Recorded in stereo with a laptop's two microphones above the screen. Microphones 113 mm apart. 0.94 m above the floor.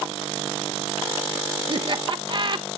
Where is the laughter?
45° right (ahead or behind), 1.0 m.